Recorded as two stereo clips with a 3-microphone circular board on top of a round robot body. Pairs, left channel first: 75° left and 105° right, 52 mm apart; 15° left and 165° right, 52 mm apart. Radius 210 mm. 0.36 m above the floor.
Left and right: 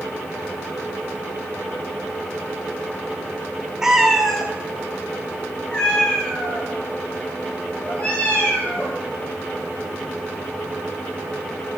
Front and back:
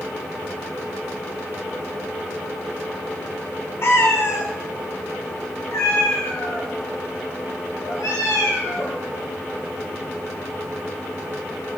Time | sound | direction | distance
3.8 | a cat meowing | 25° right | 0.8 m